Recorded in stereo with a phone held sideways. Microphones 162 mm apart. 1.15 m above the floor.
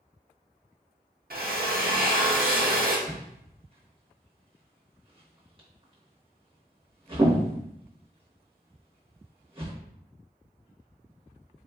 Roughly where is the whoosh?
Right.